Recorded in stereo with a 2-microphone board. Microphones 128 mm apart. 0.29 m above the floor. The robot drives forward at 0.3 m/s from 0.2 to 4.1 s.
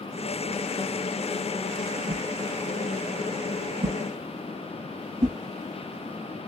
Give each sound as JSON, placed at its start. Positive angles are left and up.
{"t": 2.1, "sound": "a whoosh", "side_deg": -80, "distance_m": 0.6}